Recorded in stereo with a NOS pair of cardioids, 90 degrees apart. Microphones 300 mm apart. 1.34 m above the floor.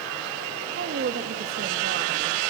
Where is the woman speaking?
45° right, 2.5 m.